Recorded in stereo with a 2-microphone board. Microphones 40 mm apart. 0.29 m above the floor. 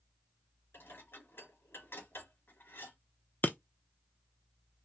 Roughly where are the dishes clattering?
Left.